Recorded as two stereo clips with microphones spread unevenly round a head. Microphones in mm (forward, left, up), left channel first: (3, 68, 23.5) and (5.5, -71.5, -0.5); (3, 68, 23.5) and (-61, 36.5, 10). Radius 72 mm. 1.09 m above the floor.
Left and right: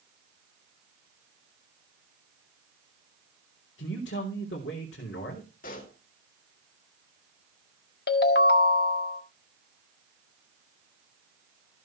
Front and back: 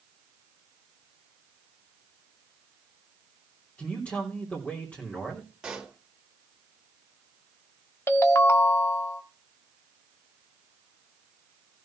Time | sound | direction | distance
3.8 | a man speaking | 95° left | 3.5 m
5.6 | a pop | 125° left | 3.5 m
8.1 | a ringtone | 75° left | 1.6 m